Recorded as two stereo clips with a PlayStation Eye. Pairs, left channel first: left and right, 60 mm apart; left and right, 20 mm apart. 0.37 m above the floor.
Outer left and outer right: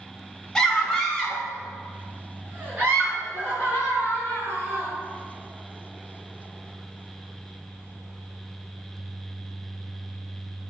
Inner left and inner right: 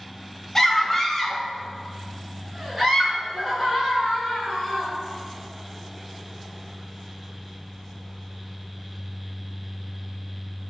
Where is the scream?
5° left (ahead or behind), 1.8 m; by 4.9 s 35° right (ahead or behind), 5 m.